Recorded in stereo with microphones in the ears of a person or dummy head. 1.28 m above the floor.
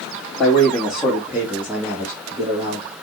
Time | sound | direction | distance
0.4 | a man speaking | centre (ahead or behind) | 2.5 m